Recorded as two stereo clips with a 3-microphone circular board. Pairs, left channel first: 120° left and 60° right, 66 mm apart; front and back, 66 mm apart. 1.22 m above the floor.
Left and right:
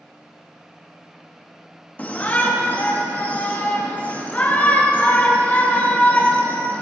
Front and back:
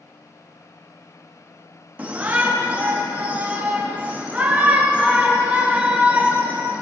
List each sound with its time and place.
2.0 s a shout: 145° left, 0.5 m